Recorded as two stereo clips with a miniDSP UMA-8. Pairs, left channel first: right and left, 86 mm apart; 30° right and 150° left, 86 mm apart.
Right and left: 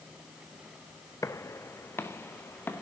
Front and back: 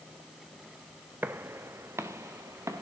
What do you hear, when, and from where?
1.2 s footsteps: 145° right, 1.1 m; by 2.8 s 155° right, 2.5 m